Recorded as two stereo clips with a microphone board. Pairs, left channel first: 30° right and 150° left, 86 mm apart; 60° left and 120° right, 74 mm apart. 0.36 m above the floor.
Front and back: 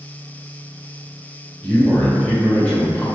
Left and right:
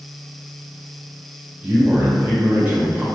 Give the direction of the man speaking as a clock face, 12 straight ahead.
3 o'clock.